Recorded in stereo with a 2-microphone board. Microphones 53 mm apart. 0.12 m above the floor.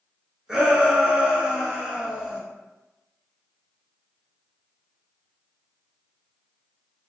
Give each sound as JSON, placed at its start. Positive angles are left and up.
{"t": 0.5, "sound": "a shout", "side_deg": -15, "distance_m": 1.1}